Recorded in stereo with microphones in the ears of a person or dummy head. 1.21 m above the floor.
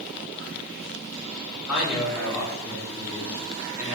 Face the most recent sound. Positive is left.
turn(degrees=-15)  # may be behind; listen again after turning